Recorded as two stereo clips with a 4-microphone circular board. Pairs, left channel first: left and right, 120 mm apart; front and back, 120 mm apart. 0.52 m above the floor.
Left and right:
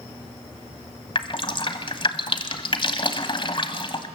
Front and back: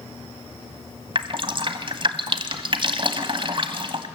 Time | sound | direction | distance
1.1 | dripping | 135° left | 1.4 m